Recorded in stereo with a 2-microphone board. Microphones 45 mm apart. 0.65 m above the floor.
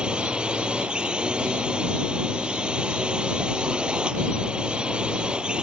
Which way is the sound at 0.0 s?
15° right (ahead or behind).